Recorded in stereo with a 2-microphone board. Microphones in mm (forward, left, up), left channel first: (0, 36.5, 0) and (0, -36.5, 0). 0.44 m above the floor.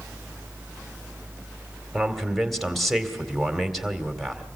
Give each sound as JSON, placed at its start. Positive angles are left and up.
{"t": 1.9, "sound": "a man speaking", "side_deg": 0, "distance_m": 2.0}